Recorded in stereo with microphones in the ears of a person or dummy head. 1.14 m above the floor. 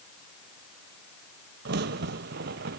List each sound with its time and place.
1.6 s a crack: 55° right (ahead or behind), 1.0 m